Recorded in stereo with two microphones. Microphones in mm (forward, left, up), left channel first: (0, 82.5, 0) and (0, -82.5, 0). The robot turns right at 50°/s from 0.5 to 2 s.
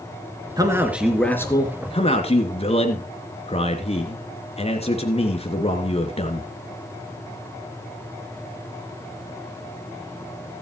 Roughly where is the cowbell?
I don't hear a cowbell.